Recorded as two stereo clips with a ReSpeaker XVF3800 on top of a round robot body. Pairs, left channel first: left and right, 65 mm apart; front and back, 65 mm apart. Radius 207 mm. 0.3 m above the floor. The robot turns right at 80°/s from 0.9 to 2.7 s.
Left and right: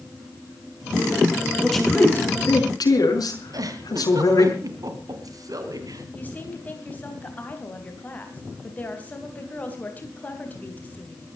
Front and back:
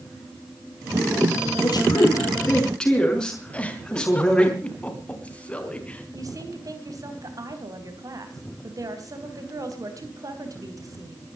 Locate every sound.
1.6 s a man speaking: 5° right, 5.5 m; by 4.5 s 80° left, 5.5 m
3.5 s a giggle: 70° right, 3 m
6.1 s a woman speaking: 155° left, 3.5 m